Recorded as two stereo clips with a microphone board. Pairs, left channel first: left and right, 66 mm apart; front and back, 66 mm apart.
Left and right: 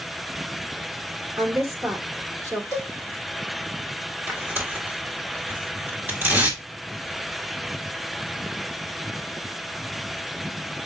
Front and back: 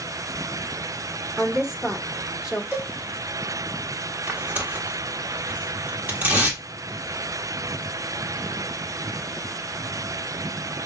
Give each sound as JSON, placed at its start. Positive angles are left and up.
{"t": 1.4, "sound": "a woman speaking", "azimuth_deg": -105, "distance_m": 1.5}
{"t": 2.7, "sound": "a cowbell", "azimuth_deg": -120, "distance_m": 2.5}
{"t": 4.3, "sound": "tearing paper", "azimuth_deg": -125, "distance_m": 1.5}